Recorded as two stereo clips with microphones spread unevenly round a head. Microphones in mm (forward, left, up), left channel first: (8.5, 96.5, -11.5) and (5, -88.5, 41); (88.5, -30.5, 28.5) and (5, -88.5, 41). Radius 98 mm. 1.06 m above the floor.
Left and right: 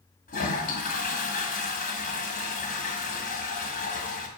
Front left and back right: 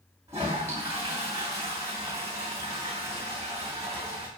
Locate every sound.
0.3 s a toilet flushing: 145° left, 1.9 m